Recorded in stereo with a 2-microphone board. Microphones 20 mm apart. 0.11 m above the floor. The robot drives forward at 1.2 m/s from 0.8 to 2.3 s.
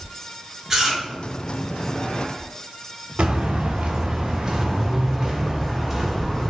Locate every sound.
0.7 s chewing: 15° right (ahead or behind), 2.0 m; by 1.0 s 20° right (ahead or behind), 1.9 m
3.2 s footsteps: 80° right, 1.4 m; by 6.5 s 15° right (ahead or behind), 2 m